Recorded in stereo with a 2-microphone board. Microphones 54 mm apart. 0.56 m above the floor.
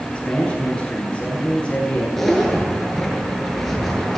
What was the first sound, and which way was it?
A man speaking, 15° left (ahead or behind).